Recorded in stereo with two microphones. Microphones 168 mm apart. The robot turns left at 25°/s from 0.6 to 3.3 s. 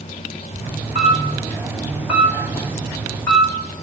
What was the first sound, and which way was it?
A camera shutter, 40° right (ahead or behind).